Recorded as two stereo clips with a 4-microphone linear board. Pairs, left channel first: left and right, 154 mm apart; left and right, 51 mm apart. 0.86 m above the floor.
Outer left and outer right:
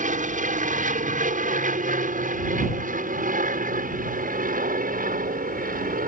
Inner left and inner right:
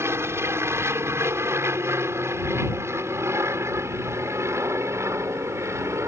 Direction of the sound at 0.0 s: 55° right (ahead or behind).